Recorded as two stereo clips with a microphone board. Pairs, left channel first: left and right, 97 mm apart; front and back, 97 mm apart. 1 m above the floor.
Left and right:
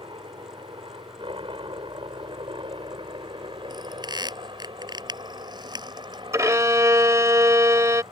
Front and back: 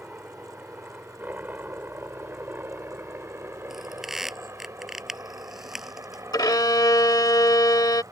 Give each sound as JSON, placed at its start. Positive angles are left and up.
{"t": 0.0, "sound": "a helicopter", "azimuth_deg": -105}
{"t": 3.7, "sound": "a squeak", "azimuth_deg": -95}
{"t": 6.3, "sound": "a violin", "azimuth_deg": -40}